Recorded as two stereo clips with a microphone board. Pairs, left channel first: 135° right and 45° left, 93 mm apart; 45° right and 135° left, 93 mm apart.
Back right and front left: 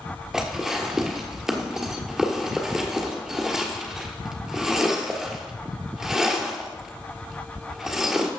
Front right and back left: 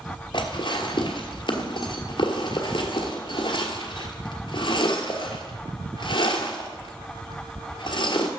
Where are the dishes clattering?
40° right, 1.3 m.